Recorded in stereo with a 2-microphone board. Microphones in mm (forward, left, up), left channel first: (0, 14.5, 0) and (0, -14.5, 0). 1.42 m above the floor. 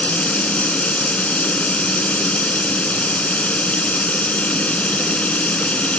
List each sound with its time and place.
0.0 s running water: 50° left (ahead or behind)